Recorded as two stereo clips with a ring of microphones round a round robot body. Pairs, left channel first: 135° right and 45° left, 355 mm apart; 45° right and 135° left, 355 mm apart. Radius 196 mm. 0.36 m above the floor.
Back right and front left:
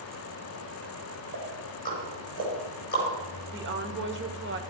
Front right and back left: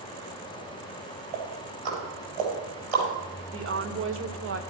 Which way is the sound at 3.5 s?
90° left.